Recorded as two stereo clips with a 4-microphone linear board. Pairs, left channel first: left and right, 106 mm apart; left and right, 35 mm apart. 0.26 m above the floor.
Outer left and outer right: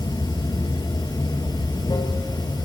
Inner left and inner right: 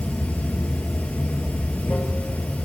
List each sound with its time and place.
0.0 s running water: 45° left (ahead or behind), 1.4 m